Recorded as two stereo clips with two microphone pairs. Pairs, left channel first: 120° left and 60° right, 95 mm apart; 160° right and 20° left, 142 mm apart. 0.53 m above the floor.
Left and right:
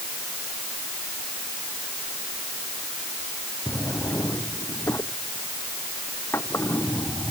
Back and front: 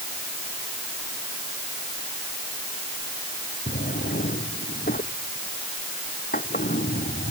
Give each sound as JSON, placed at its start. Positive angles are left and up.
{"t": 3.7, "sound": "a drawer", "azimuth_deg": -175}